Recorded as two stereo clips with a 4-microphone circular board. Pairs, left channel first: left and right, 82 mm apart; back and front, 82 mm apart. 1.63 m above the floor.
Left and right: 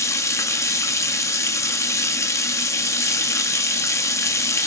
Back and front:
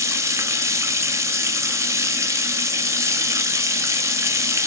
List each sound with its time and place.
0.0 s running water: 45° left, 0.8 m